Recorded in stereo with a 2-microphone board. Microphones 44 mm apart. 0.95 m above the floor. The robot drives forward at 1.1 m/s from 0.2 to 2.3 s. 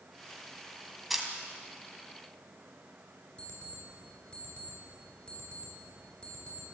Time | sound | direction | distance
1.1 | a camera shutter | 5° right (ahead or behind) | 2.5 m
3.4 | an alarm clock | 30° left (ahead or behind) | 7.5 m